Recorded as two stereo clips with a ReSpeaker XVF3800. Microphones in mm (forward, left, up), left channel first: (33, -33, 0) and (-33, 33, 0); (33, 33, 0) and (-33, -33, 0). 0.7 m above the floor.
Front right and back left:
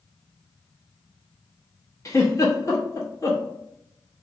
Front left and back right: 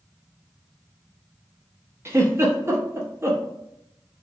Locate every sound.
2.0 s a giggle: 85° right, 0.7 m